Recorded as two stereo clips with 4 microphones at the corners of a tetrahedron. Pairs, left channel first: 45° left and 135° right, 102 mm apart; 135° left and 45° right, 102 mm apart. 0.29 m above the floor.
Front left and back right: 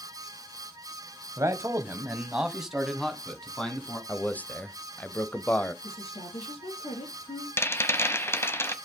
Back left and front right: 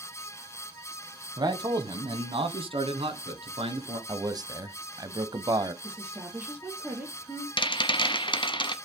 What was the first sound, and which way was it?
A man speaking, 80° right.